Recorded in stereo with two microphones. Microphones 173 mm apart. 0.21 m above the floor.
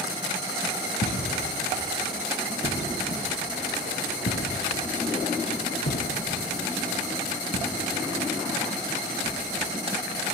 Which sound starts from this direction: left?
Footsteps, at 1.0 s.